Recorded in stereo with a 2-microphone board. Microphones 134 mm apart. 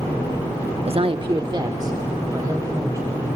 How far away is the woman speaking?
About 0.7 m.